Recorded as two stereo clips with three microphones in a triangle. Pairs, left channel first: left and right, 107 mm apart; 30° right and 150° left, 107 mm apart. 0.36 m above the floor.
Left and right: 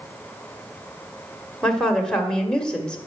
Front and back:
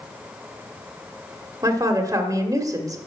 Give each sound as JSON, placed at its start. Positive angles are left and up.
{"t": 1.6, "sound": "a woman speaking", "azimuth_deg": 165, "distance_m": 1.5}